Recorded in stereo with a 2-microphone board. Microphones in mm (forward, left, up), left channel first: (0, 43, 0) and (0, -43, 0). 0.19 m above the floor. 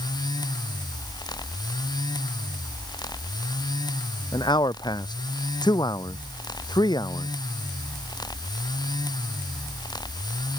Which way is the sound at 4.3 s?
60° left (ahead or behind).